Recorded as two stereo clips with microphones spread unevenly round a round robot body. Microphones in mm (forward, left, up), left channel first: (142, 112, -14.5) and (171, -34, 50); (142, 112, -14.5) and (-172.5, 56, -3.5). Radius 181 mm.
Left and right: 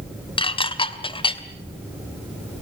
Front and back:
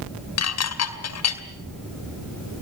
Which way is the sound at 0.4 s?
50° left.